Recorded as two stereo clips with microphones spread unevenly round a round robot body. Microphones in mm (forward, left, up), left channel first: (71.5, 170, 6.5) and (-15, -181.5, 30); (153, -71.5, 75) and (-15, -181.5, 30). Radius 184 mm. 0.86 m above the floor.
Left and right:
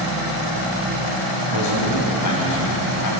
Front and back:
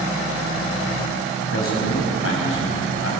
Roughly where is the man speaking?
Ahead left.